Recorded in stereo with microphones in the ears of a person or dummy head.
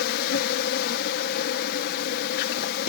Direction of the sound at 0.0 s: 50° left (ahead or behind).